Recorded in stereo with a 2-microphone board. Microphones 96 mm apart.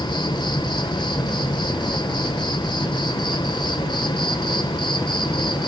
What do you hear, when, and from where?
0.0 s an insect: 50° left (ahead or behind), 1.2 m